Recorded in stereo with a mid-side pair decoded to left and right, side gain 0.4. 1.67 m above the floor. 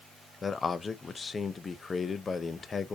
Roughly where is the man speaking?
Ahead left.